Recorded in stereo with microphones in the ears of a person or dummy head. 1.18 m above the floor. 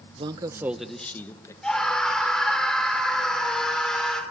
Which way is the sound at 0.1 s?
40° right (ahead or behind).